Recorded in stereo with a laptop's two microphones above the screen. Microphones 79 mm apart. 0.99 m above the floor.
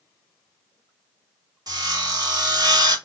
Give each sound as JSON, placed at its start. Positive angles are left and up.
{"t": 1.7, "sound": "sawing", "side_deg": -55, "distance_m": 0.9}